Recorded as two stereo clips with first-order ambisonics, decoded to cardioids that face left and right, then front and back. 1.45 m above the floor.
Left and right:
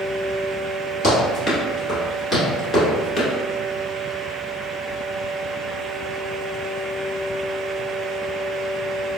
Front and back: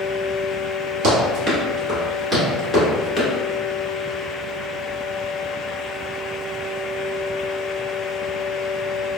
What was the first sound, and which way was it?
Running footsteps, 165° left.